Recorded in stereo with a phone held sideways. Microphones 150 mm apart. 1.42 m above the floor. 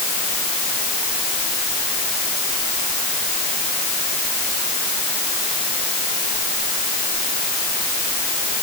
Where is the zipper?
No zipper in this recording.